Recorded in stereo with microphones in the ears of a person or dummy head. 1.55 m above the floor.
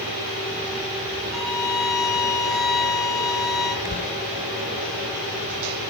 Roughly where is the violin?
Centre.